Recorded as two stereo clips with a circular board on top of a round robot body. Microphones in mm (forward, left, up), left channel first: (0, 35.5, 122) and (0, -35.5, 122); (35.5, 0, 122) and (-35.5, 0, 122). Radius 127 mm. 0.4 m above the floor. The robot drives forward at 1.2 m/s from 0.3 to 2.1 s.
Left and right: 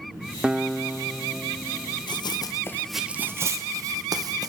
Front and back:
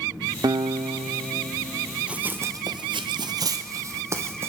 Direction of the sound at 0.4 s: 165° right.